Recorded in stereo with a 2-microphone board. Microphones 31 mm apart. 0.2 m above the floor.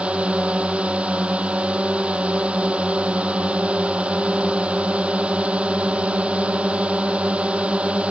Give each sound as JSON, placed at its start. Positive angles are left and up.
{"t": 0.0, "sound": "a drone", "side_deg": -35}